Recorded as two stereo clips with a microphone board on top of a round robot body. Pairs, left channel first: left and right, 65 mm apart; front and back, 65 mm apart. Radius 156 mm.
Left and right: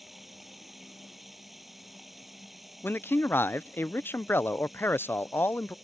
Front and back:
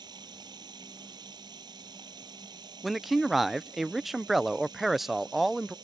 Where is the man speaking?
95° left.